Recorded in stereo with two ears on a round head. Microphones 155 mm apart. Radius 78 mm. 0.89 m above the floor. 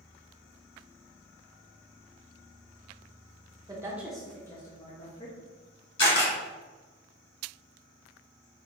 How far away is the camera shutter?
About 1.6 m.